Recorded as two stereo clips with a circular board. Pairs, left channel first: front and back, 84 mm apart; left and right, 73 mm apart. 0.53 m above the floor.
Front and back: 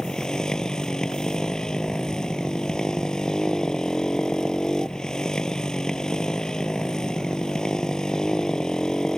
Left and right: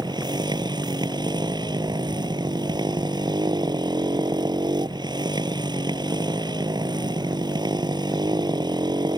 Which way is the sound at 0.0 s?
80° right.